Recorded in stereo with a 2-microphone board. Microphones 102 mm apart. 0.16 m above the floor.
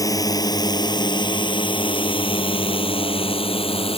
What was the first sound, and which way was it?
A drone, 35° left (ahead or behind).